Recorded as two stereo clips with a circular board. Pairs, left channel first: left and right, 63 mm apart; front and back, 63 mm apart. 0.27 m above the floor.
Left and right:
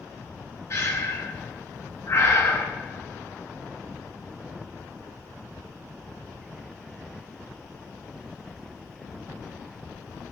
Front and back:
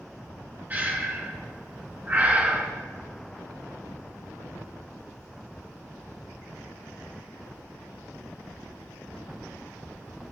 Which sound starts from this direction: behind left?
Breathing, at 0.7 s.